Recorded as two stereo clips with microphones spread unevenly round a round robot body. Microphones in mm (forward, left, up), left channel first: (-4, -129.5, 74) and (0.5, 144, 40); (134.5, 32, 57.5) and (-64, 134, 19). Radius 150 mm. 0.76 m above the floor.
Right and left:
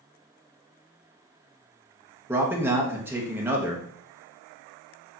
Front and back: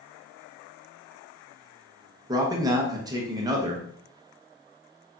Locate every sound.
2.3 s a man speaking: 145° left, 0.8 m